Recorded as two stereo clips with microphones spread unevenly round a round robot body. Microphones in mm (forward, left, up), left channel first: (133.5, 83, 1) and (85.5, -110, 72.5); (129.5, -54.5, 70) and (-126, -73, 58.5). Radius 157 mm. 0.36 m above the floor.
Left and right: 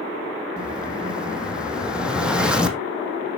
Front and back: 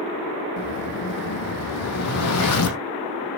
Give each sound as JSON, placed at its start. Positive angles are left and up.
{"t": 0.6, "sound": "an explosion", "azimuth_deg": -20, "distance_m": 3.5}